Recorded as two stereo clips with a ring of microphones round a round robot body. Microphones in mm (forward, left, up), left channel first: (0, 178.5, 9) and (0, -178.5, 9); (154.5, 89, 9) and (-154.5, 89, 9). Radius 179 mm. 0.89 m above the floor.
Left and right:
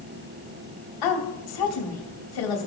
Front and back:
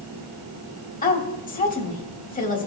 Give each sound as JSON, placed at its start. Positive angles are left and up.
{"t": 1.0, "sound": "a woman speaking", "azimuth_deg": 65, "distance_m": 2.5}